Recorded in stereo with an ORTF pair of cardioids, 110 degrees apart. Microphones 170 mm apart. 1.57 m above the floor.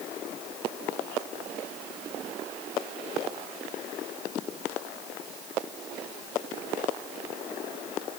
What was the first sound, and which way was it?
Only background noise.